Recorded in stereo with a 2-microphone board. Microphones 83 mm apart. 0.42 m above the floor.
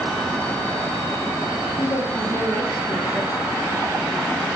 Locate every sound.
1.8 s a woman speaking: 25° left (ahead or behind), 8 m